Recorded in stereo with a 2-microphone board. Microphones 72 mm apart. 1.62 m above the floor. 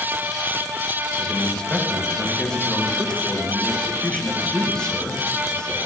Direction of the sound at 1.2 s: 15° left (ahead or behind).